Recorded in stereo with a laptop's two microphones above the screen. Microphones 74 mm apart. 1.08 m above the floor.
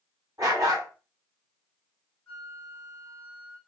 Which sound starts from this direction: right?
A dog barking, at 0.4 s.